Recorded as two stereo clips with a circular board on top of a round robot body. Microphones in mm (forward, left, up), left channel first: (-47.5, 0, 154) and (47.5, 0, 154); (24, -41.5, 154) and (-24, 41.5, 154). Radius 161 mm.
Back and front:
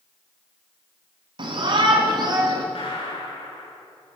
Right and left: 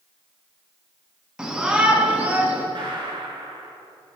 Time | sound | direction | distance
1.4 | a shout | 35° left | 6 m
2.8 | a gunshot | 160° left | 8 m